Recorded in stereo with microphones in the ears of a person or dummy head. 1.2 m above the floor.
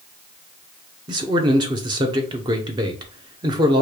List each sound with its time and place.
1.1 s a man speaking: 25° right (ahead or behind), 0.8 m